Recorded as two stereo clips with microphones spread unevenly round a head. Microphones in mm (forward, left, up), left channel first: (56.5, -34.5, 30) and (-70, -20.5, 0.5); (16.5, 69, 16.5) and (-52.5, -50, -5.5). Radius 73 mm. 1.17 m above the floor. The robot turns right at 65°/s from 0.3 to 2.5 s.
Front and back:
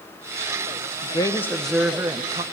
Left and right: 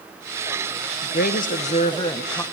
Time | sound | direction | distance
1.0 | a woman speaking | 50° left | 0.9 m